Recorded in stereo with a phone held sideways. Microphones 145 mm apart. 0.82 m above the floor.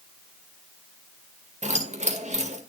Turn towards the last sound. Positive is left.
turn(degrees=-55)  # may be behind; listen again after turning